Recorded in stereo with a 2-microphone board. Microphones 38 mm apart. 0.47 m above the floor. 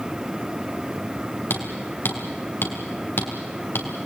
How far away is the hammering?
About 3.5 m.